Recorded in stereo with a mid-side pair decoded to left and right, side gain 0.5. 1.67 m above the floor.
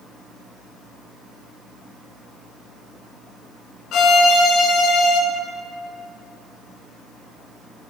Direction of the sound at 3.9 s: 65° left.